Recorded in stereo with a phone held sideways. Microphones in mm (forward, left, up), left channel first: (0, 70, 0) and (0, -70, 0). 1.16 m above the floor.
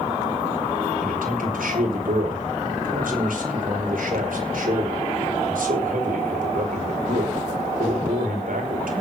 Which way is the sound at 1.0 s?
85° right.